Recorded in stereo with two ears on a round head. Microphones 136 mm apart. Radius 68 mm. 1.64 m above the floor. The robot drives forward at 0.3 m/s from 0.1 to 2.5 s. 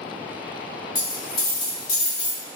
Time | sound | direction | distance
0.9 | a dropped coin | 30° left (ahead or behind) | 1.3 m